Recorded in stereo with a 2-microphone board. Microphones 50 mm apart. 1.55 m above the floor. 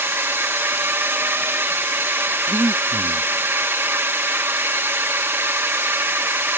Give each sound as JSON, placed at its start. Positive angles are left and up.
{"t": 0.0, "sound": "a drone", "side_deg": -50}
{"t": 2.5, "sound": "breathing", "side_deg": -60}